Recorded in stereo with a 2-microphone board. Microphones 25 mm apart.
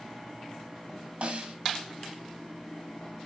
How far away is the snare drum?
About 0.9 m.